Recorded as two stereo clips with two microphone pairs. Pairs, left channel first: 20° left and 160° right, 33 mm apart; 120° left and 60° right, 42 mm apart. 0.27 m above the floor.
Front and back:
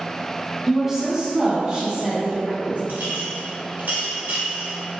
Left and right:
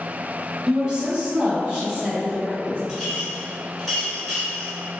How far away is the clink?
About 1.8 m.